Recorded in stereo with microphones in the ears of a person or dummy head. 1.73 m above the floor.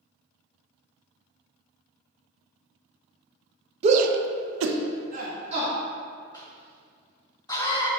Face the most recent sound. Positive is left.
turn(degrees=25)  # may be behind; listen again after turning